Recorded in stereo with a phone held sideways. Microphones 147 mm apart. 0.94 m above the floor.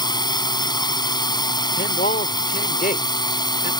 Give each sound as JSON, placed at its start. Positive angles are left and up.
{"t": 0.0, "sound": "a drone", "side_deg": 30}
{"t": 1.8, "sound": "a man speaking", "side_deg": 75}